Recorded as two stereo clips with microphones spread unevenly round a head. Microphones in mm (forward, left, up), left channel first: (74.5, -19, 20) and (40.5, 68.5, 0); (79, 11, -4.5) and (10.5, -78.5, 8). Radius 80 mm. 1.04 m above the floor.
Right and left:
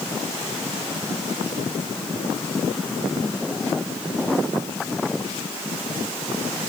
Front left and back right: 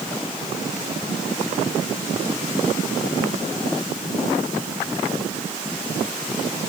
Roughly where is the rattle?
No rattle in this recording.